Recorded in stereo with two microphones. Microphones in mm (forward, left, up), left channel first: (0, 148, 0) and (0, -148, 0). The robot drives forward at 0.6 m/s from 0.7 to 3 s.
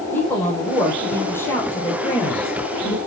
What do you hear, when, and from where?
0.1 s a woman speaking: 5° left (ahead or behind), 4.5 m; by 3.0 s 10° left (ahead or behind), 3 m